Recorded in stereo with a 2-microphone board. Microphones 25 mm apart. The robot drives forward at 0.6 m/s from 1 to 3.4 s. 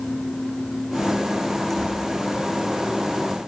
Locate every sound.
1.7 s tearing paper: 10° left (ahead or behind), 7 m